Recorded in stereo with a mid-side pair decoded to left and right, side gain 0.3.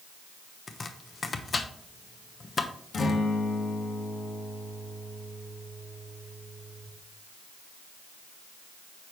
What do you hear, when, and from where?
0.7 s chopping: 50° left, 0.9 m
2.9 s a guitar: 65° left, 1.4 m